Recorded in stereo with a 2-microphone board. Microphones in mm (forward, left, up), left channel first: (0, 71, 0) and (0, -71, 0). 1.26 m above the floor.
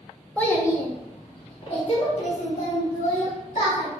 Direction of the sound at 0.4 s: 10° left (ahead or behind).